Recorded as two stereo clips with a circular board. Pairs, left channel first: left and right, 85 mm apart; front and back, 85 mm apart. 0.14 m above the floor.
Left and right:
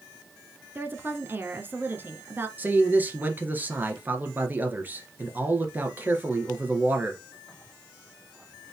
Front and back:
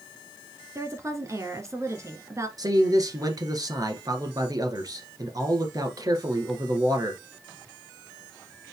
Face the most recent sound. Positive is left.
turn(degrees=-150)